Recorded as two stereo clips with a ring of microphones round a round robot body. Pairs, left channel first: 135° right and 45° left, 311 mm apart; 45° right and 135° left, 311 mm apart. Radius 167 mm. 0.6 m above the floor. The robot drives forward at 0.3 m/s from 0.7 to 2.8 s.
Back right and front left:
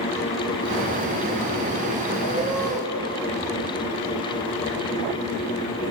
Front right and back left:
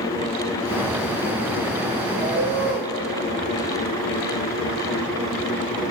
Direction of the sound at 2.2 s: 130° left.